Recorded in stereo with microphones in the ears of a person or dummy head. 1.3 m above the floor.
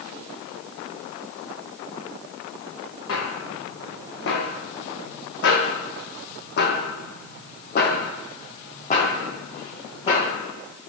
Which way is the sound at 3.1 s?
70° left (ahead or behind).